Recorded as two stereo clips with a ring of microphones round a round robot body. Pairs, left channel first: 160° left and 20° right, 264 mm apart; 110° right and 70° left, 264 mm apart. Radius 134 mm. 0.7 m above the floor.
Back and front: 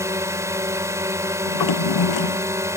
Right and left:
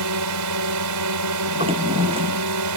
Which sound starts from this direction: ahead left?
A drone, at 0.0 s.